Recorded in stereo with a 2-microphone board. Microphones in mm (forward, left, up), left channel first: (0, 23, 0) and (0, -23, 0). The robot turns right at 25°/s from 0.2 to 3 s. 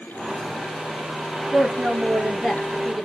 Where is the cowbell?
No cowbell in this recording.